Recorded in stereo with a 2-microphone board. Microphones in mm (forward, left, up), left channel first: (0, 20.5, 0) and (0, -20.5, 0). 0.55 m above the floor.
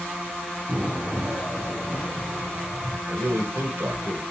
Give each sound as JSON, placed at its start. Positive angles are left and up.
{"t": 0.7, "sound": "an explosion", "side_deg": -40, "distance_m": 2.5}
{"t": 3.1, "sound": "a man speaking", "side_deg": -65, "distance_m": 1.6}